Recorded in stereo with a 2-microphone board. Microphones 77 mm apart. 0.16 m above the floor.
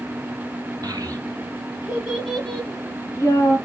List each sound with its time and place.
0.8 s a child speaking: 50° right (ahead or behind), 1.3 m; by 3.6 s 45° left (ahead or behind), 1.2 m